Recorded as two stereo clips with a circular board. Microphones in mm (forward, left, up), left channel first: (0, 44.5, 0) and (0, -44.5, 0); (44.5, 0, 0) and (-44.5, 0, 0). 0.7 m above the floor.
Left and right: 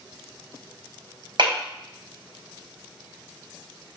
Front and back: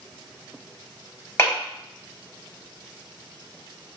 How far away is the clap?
About 3 m.